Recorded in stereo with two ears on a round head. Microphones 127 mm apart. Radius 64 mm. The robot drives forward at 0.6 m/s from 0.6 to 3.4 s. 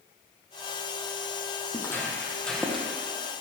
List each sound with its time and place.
1.7 s footsteps: 20° left (ahead or behind), 2.5 m; by 2.9 s 5° right (ahead or behind), 2 m